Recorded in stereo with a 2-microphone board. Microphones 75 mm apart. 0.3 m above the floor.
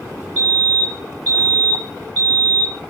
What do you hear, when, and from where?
0.4 s a fire alarm: 20° left (ahead or behind), 2.5 m